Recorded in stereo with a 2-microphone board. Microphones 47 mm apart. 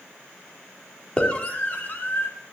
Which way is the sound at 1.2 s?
25° left (ahead or behind).